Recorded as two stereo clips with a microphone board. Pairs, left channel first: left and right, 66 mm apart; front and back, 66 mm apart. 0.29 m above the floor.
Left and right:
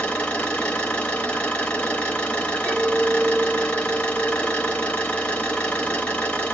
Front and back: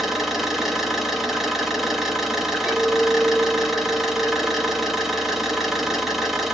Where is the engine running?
100° left, 0.8 m.